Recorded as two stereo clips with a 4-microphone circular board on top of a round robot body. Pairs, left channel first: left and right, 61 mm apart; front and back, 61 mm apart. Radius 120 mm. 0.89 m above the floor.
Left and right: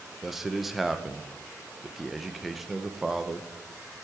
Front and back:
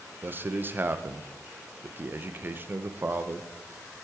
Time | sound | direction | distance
0.2 | a man speaking | 175° right | 1.0 m